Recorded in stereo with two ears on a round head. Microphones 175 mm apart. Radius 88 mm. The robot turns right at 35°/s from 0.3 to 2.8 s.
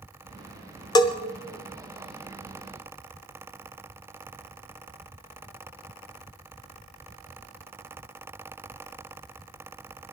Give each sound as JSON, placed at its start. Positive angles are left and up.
{"t": 0.9, "sound": "a bell", "side_deg": 20, "distance_m": 1.0}